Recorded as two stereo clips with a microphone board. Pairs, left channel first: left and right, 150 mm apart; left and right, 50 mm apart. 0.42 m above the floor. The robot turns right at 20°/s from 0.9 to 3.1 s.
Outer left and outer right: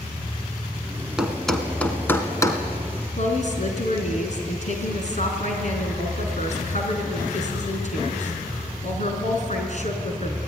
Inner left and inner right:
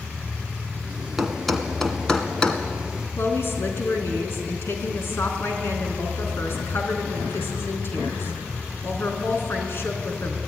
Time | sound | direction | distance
1.2 | a thud | 5° right (ahead or behind) | 2 m
3.2 | a woman speaking | 50° left (ahead or behind) | 4 m